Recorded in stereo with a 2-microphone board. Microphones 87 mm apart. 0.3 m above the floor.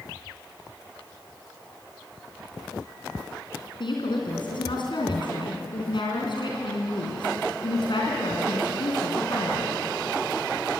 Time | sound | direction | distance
3.8 | a woman speaking | 65° left (ahead or behind) | 4 m